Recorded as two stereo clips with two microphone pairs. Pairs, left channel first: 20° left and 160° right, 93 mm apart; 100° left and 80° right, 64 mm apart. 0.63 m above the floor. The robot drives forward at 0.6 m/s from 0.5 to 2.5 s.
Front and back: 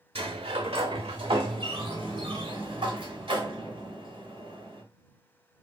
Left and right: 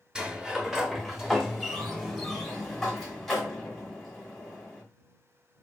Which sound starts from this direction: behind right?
A sliding door, at 0.1 s.